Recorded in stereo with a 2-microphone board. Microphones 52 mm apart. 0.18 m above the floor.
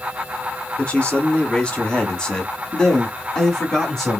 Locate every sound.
0.8 s a man speaking: 20° left (ahead or behind), 1.7 m; by 4.2 s centre (ahead or behind), 1.7 m